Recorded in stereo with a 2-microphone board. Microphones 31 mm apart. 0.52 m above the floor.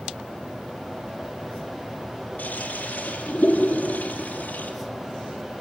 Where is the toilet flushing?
70° left (ahead or behind), 8.5 m.